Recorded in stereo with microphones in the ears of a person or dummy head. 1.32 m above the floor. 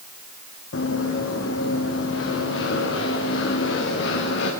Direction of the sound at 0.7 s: 75° left (ahead or behind).